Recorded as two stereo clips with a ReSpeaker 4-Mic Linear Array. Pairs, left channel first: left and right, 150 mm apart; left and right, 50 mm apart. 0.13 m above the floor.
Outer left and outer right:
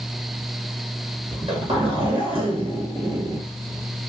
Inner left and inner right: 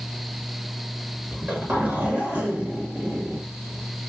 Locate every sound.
1.3 s a zipper: 40° right (ahead or behind), 1.9 m